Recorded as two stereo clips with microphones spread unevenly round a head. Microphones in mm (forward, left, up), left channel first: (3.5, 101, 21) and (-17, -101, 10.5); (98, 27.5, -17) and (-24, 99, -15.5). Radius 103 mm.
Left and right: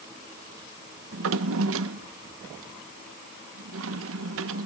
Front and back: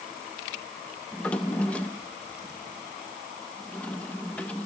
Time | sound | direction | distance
1.1 | a drawer | 110° right | 0.6 m